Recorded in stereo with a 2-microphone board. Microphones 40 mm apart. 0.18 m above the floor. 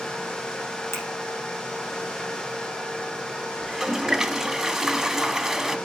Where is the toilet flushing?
10° right (ahead or behind), 0.7 m.